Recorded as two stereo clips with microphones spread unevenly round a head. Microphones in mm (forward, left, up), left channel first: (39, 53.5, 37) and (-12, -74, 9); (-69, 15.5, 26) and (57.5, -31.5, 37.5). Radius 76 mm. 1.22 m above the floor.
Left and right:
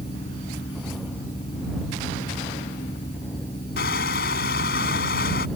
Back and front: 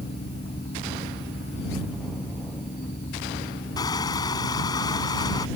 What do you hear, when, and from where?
0.0 s a fan: 120° left
3.8 s crushing: 95° left